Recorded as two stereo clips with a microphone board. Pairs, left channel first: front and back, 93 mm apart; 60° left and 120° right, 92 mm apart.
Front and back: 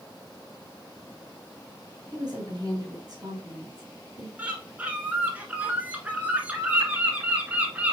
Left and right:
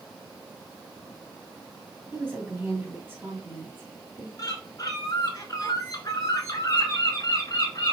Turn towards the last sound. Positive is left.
turn(degrees=105)